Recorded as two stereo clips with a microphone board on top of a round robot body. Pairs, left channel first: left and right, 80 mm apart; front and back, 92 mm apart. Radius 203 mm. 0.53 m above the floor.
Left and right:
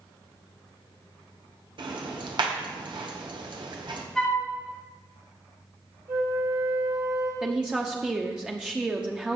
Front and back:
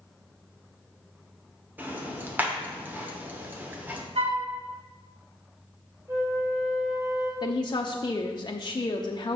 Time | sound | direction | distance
1.8 | ticking | 110° right | 1.5 m
4.2 | a flute | 175° left | 2 m
6.1 | a flute | 120° right | 3 m
7.4 | a woman speaking | 15° right | 0.9 m